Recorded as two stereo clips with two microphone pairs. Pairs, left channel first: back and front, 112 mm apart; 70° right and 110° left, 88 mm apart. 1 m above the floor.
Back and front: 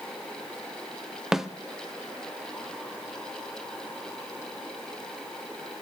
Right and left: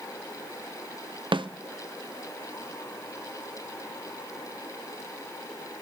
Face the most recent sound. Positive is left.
turn(degrees=85)